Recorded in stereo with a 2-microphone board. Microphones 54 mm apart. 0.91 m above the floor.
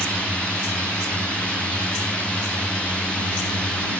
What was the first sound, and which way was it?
A drone, 20° left (ahead or behind).